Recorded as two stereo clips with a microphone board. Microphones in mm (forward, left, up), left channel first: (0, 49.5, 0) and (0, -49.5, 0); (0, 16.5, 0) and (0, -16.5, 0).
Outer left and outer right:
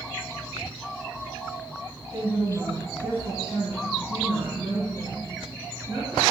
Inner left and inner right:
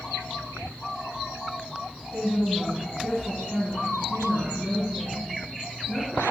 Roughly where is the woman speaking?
Right.